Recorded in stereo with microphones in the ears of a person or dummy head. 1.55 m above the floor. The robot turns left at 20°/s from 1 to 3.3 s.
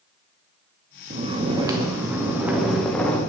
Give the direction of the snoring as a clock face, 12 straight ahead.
5 o'clock.